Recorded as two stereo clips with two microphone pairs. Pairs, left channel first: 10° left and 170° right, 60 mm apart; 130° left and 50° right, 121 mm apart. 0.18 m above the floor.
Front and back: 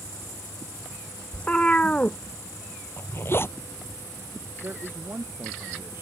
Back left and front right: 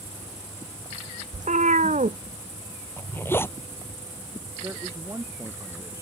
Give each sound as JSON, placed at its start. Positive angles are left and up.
{"t": 1.3, "sound": "a cat meowing", "azimuth_deg": -60}
{"t": 3.0, "sound": "a zipper", "azimuth_deg": 60}
{"t": 4.6, "sound": "a man speaking", "azimuth_deg": -115}